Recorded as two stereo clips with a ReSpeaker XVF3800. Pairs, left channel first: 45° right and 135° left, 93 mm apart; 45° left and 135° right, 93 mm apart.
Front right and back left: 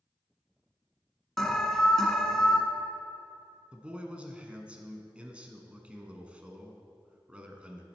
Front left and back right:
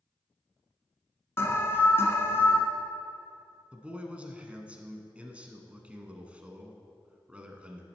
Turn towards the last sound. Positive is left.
turn(degrees=180)